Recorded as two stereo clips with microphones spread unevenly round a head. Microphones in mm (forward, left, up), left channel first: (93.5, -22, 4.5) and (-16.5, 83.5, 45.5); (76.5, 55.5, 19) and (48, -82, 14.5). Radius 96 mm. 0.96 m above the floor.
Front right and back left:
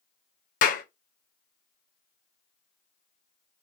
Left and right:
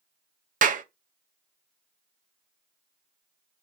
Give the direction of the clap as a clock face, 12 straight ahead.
3 o'clock.